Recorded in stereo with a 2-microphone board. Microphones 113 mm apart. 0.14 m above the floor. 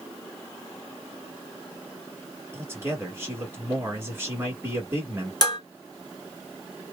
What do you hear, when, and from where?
2.5 s a man speaking: 20° right (ahead or behind), 1.4 m
5.4 s dishes clattering: 35° left (ahead or behind), 1.2 m